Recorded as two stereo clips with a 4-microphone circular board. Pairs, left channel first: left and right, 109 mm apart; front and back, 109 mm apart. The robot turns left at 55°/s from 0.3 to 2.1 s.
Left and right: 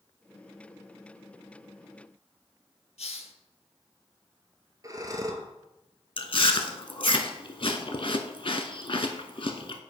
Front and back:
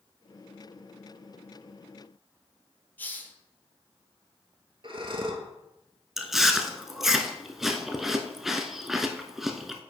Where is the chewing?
95° left, 0.6 m.